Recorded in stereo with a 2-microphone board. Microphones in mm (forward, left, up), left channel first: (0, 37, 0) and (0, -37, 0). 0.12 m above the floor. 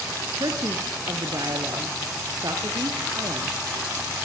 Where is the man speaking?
60° right (ahead or behind), 3 m.